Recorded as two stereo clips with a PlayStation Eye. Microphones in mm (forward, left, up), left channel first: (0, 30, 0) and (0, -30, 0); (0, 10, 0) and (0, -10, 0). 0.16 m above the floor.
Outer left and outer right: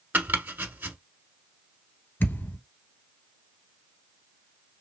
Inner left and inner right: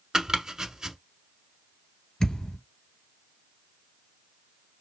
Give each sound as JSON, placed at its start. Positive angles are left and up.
{"t": 0.1, "sound": "chopping", "side_deg": -30, "distance_m": 0.8}
{"t": 2.2, "sound": "a thud", "side_deg": 35, "distance_m": 1.1}